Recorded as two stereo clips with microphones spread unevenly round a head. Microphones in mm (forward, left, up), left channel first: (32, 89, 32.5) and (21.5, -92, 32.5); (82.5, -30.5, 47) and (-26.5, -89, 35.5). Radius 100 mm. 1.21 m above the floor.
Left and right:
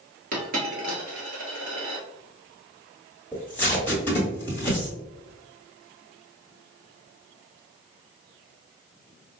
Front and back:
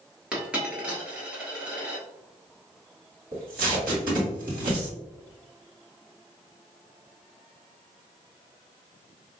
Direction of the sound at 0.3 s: 70° right.